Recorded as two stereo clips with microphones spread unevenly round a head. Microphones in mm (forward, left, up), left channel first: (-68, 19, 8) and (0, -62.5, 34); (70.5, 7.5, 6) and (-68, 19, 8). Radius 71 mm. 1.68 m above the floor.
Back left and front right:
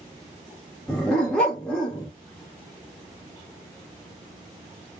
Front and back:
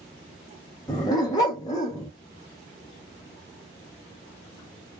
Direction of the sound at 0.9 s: 25° left.